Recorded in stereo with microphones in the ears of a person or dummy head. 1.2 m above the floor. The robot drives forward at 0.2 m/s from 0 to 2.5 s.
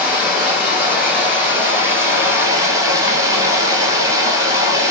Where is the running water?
10° right (ahead or behind), 1.1 m; by 4.9 s 20° right (ahead or behind), 0.6 m.